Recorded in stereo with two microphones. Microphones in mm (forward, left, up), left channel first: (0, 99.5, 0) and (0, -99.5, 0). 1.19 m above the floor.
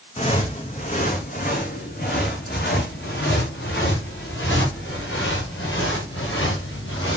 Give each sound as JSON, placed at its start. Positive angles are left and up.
{"t": 0.2, "sound": "footsteps", "side_deg": 30, "distance_m": 3.0}